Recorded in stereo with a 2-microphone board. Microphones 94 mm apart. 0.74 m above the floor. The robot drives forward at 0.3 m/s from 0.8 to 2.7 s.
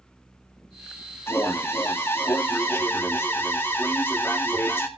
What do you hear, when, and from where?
1.3 s an alarm: 25° left (ahead or behind), 2 m; by 4.9 s 20° left (ahead or behind), 2.5 m